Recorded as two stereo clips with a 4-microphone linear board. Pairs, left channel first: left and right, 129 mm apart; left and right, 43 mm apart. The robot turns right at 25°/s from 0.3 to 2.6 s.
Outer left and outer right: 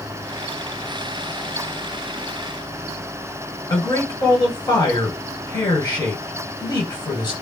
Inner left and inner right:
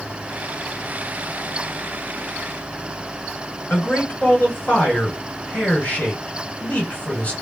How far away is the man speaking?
About 1.9 m.